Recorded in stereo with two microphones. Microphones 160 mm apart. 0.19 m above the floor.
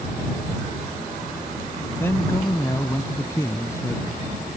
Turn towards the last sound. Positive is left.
turn(degrees=20)  # may be behind; listen again after turning